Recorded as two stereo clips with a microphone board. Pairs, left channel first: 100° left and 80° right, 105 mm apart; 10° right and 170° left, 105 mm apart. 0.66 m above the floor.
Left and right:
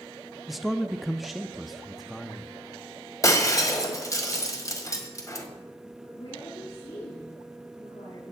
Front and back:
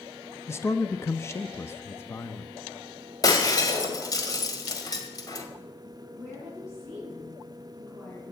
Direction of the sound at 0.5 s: 5° left.